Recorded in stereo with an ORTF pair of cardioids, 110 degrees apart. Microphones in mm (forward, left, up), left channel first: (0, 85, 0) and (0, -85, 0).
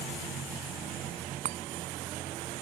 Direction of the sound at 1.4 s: 55° right.